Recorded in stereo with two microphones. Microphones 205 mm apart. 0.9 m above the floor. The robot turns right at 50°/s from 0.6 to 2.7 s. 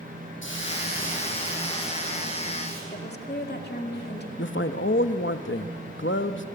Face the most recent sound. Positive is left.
turn(degrees=60)  # may be behind; listen again after turning